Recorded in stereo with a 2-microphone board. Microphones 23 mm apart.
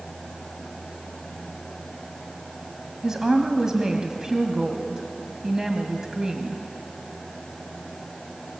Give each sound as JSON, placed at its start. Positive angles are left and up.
{"t": 3.0, "sound": "a woman speaking", "side_deg": -25, "distance_m": 1.7}